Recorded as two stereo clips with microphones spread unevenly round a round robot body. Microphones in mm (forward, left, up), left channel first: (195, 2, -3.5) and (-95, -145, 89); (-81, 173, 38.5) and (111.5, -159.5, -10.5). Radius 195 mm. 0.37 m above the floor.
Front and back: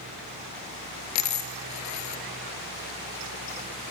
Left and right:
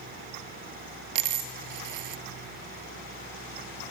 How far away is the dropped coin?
About 1.4 m.